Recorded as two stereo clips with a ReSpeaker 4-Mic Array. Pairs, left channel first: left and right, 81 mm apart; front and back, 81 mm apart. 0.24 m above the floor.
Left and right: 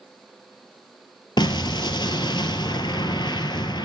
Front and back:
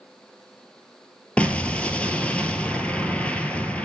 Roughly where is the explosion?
Left.